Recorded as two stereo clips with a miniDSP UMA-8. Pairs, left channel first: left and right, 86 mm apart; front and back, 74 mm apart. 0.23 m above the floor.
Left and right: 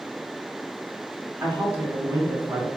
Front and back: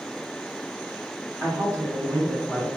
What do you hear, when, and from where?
1.4 s a woman speaking: 150° right, 1.8 m; by 2.7 s 120° right, 1.2 m